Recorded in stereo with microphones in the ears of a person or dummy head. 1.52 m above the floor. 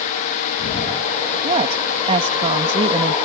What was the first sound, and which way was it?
A woman speaking, 30° right (ahead or behind).